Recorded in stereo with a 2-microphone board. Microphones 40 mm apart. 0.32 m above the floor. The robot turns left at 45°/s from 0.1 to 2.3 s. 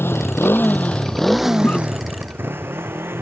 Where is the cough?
45° left (ahead or behind); by 1.8 s 40° left (ahead or behind).